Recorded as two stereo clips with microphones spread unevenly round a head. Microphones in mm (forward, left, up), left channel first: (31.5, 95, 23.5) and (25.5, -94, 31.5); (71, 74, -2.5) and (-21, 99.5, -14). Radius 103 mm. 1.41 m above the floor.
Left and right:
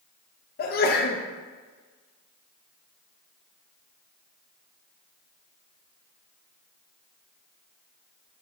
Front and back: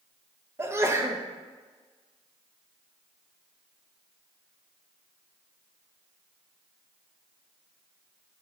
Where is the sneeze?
110° left, 0.5 m.